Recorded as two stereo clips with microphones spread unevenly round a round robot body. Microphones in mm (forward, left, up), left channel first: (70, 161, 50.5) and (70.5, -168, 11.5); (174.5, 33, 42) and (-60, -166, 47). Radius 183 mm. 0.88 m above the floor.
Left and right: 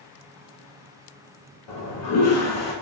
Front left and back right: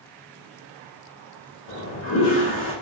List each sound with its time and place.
1.7 s a toilet flushing: 65° left, 1.1 m